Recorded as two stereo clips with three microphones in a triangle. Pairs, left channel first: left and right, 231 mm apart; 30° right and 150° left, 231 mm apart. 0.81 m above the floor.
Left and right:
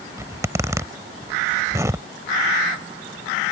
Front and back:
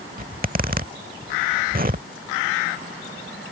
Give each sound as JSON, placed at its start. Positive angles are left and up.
{"t": 0.2, "sound": "a zipper", "azimuth_deg": -165}